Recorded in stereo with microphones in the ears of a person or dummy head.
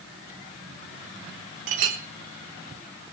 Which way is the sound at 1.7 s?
50° right (ahead or behind).